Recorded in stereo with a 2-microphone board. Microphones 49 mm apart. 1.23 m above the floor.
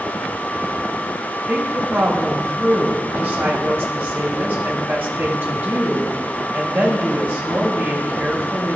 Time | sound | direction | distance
1.5 | a woman speaking | 50° right (ahead or behind) | 3 m